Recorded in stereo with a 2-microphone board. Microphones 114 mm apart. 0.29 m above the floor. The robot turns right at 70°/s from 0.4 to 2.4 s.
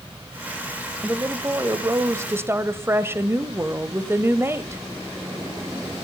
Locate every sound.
1.0 s a woman speaking: 15° right (ahead or behind), 1.1 m; by 4.8 s 20° right (ahead or behind), 1.1 m